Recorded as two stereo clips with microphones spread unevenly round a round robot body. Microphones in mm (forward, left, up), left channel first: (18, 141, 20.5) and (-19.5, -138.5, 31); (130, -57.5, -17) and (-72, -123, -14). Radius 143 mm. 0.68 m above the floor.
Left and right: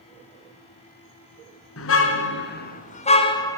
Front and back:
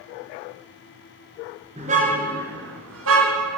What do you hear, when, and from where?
1.8 s a car horn: 130° left, 3 m; by 3.6 s 165° left, 2.5 m